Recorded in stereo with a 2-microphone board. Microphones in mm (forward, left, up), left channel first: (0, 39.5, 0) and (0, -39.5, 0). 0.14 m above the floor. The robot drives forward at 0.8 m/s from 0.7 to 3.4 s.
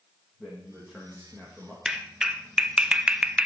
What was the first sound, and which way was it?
A man speaking, centre (ahead or behind).